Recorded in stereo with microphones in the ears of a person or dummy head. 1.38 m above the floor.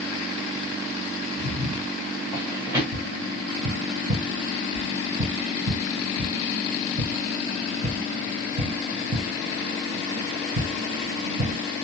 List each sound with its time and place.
1.4 s footsteps: 35° right (ahead or behind), 1.7 m; by 2.8 s 15° right (ahead or behind), 1.7 m
2.9 s tapping: 40° right (ahead or behind), 2 m